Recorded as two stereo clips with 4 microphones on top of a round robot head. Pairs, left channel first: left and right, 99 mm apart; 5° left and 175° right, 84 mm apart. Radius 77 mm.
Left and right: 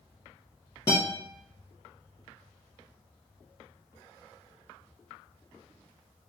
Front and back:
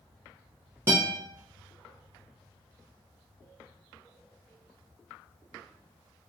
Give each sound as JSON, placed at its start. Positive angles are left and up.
{"t": 0.9, "sound": "a guitar", "azimuth_deg": 145, "distance_m": 0.6}